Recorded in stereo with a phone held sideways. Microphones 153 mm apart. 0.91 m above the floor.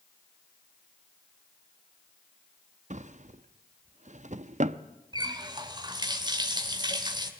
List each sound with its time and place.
2.9 s a drawer: 55° right (ahead or behind), 0.7 m
5.1 s a running tap: 30° right (ahead or behind), 2 m